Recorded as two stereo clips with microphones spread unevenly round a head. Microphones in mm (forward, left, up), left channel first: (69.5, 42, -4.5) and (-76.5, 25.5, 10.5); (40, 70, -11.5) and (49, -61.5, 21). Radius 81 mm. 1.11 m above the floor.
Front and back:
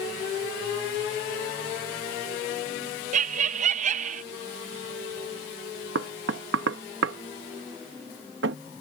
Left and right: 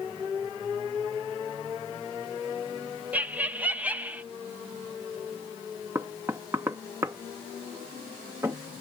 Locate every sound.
3.1 s laughter: straight behind
6.0 s knocking: 165° right